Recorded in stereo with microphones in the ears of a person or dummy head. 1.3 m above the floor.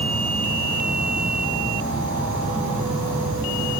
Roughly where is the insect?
Centre.